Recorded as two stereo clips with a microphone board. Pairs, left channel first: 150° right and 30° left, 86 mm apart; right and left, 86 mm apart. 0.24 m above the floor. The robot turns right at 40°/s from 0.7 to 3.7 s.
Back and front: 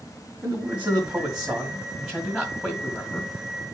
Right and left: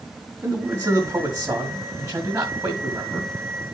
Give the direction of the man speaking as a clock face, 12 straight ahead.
10 o'clock.